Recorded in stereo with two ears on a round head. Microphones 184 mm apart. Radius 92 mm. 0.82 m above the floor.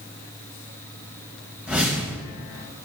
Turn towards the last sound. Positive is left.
turn(degrees=-5)  # may be behind; listen again after turning